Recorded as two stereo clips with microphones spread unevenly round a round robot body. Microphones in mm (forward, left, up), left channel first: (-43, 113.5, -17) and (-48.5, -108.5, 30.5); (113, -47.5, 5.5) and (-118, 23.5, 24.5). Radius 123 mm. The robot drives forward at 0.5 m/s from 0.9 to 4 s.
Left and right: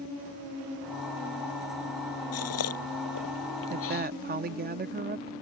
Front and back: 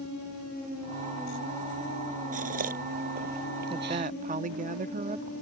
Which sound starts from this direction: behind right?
A woman speaking, at 3.7 s.